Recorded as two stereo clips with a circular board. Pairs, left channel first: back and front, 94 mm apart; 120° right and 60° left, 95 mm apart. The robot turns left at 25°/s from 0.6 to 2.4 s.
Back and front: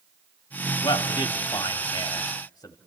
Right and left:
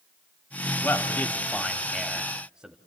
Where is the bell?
I don't hear a bell.